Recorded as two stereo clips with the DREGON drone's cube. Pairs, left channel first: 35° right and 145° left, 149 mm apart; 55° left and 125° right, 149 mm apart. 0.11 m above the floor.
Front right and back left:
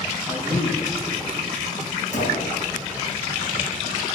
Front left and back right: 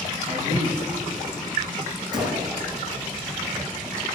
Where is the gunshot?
65° right, 4 m.